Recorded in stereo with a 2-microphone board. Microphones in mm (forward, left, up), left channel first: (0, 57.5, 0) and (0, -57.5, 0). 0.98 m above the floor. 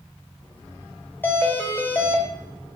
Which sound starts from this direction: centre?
A doorbell, at 1.2 s.